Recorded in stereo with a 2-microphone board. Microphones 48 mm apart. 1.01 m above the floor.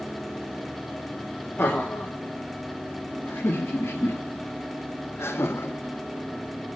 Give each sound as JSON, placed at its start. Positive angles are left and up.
{"t": 1.6, "sound": "laughter", "side_deg": 40, "distance_m": 3.0}